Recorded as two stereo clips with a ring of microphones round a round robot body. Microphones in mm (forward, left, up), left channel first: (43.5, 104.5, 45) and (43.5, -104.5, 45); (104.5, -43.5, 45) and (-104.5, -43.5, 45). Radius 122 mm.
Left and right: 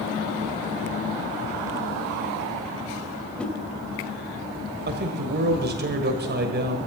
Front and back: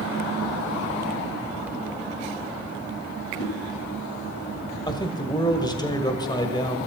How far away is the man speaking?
About 1.7 m.